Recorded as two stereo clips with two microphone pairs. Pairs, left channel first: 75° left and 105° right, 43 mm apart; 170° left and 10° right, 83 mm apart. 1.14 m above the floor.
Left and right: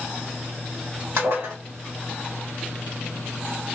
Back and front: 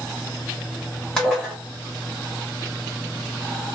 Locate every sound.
1.2 s dishes clattering: 110° right, 1.6 m